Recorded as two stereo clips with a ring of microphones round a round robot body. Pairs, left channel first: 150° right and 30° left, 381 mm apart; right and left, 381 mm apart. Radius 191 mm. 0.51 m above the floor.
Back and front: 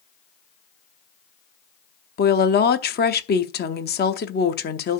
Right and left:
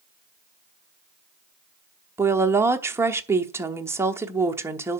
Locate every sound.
2.2 s a woman speaking: 170° left, 0.8 m